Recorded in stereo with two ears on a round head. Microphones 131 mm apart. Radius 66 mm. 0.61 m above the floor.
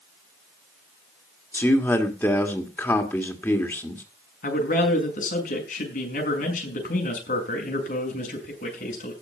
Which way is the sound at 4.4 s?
60° left (ahead or behind).